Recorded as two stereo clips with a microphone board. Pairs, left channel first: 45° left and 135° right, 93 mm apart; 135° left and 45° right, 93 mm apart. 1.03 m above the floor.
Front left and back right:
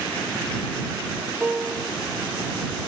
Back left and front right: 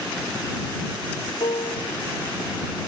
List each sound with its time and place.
1.4 s a piano: 150° left